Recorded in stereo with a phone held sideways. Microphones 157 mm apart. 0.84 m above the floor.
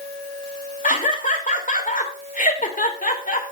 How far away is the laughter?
About 3 m.